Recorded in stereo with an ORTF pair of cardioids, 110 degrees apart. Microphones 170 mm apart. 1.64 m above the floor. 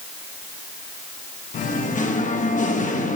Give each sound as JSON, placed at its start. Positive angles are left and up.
{"t": 1.5, "sound": "singing", "azimuth_deg": 50, "distance_m": 1.3}